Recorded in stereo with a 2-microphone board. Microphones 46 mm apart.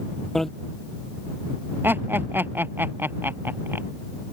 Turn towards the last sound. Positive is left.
turn(degrees=-50)  # may be behind; listen again after turning